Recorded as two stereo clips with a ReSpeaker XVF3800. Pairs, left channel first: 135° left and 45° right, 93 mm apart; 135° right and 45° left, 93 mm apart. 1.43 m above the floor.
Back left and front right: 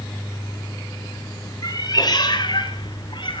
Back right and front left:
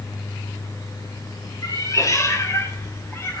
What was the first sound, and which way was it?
A cat meowing, straight behind.